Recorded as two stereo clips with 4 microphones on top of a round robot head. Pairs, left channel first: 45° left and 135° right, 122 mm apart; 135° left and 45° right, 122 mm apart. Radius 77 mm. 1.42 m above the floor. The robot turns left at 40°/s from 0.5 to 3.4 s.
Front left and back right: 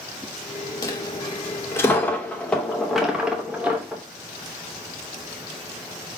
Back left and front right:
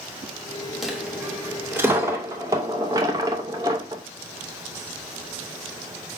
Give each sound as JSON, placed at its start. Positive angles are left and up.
{"t": 0.8, "sound": "a dropped coin", "azimuth_deg": 40, "distance_m": 0.7}